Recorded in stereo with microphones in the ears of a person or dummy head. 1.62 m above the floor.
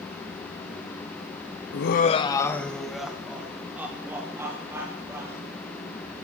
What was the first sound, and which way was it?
Laughter, 70° left (ahead or behind).